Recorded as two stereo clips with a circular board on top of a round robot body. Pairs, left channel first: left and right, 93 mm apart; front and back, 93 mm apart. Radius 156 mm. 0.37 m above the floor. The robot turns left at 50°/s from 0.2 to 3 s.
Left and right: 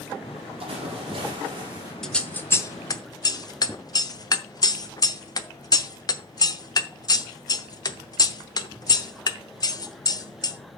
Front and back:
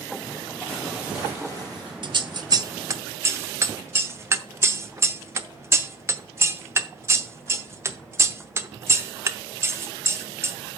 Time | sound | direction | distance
0.6 | a splash | 80° right | 4 m
2.0 | scissors | 175° left | 1.0 m